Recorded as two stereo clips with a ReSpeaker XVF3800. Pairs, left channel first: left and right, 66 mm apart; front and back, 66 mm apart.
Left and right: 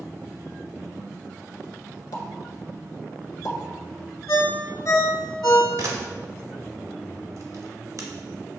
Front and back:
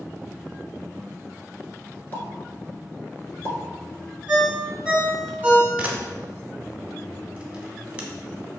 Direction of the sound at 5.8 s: 110° right.